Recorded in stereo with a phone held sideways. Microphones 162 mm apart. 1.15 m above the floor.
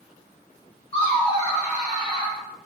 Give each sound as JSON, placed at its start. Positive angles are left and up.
{"t": 0.9, "sound": "laughter", "side_deg": 35, "distance_m": 0.8}